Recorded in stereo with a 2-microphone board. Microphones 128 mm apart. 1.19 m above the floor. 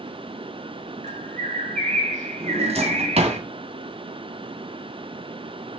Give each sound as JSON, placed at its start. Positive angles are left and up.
{"t": 1.0, "sound": "a bird", "side_deg": -75, "distance_m": 2.0}
{"t": 2.4, "sound": "a drawer", "side_deg": -55, "distance_m": 2.0}